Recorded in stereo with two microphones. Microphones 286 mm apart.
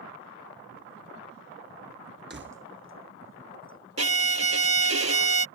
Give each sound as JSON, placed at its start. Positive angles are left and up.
{"t": 2.3, "sound": "keys jangling", "side_deg": -35}
{"t": 4.0, "sound": "a violin", "side_deg": -55}